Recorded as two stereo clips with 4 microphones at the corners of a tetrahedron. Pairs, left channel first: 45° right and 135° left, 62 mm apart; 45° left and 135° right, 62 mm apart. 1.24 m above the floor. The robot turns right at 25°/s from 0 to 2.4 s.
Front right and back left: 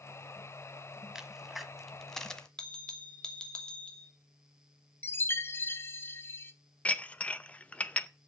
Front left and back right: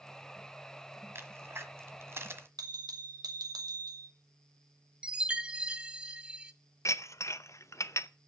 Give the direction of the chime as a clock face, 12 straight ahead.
2 o'clock.